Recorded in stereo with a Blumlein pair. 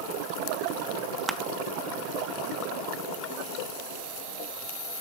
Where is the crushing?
5° right, 0.9 m.